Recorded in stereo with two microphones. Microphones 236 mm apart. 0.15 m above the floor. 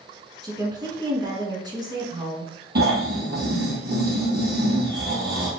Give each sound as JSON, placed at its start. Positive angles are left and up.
{"t": 0.4, "sound": "a woman speaking", "side_deg": -20, "distance_m": 1.4}
{"t": 2.8, "sound": "snoring", "side_deg": -45, "distance_m": 2.5}